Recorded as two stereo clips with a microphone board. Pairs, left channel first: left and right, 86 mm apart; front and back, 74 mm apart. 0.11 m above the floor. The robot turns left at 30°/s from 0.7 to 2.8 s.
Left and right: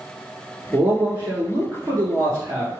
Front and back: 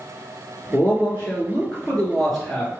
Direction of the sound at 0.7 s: 35° right.